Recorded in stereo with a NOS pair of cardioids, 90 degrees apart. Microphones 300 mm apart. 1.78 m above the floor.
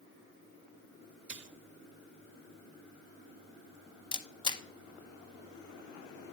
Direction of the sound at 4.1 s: 15° left.